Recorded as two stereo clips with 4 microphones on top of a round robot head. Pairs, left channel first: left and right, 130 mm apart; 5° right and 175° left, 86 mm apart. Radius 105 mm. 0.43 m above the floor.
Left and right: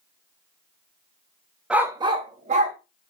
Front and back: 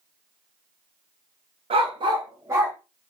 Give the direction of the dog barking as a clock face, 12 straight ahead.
6 o'clock.